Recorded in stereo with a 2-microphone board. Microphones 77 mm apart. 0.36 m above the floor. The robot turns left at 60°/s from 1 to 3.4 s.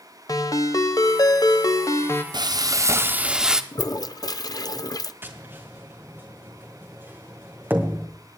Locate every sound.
0.3 s a ringtone: 110° left, 1.0 m; by 2.2 s 35° left, 1.0 m
2.3 s frying: 105° right, 0.9 m; by 3.6 s 170° right, 0.9 m
3.7 s a toilet flushing: 50° left (ahead or behind), 0.6 m
5.2 s tapping: 25° right (ahead or behind), 2 m